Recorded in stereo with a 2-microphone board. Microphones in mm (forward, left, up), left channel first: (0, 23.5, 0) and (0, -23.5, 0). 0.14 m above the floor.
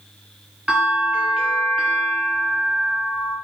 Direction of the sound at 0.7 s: 10° right (ahead or behind).